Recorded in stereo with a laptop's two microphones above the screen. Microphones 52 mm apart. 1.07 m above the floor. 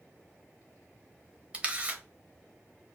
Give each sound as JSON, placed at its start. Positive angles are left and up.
{"t": 1.5, "sound": "a camera shutter", "side_deg": -20, "distance_m": 0.6}